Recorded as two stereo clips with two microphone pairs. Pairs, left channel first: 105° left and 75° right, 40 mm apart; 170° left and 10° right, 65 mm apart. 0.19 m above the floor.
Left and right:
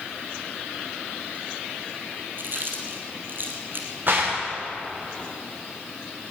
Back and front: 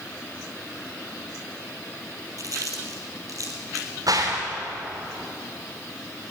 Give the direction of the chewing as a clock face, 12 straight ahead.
1 o'clock.